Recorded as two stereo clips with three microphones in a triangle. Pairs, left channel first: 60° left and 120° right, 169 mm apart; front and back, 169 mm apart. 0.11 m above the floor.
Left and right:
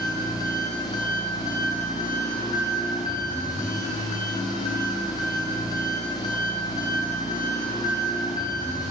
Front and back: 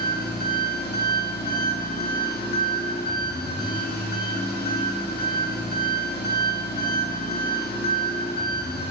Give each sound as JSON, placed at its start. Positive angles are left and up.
{"t": 0.0, "sound": "an engine running", "azimuth_deg": -10, "distance_m": 1.3}